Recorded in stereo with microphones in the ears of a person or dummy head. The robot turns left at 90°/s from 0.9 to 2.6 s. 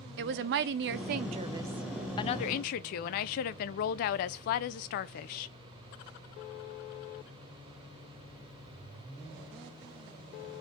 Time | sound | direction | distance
0.2 | a woman speaking | 100° right | 0.5 m